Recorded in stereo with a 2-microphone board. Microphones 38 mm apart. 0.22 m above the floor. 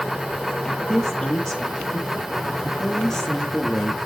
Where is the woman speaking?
15° left (ahead or behind), 5 m.